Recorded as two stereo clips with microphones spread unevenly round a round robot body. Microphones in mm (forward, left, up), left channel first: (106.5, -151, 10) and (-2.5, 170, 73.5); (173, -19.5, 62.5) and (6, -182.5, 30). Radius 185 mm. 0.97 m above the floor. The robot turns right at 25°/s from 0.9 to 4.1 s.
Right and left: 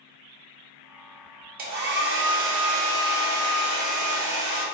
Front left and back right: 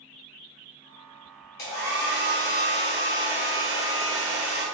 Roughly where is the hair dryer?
Ahead left.